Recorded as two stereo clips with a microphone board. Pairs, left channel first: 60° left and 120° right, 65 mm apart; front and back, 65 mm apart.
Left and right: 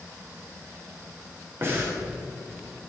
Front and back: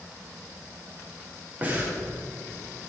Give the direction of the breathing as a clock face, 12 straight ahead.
4 o'clock.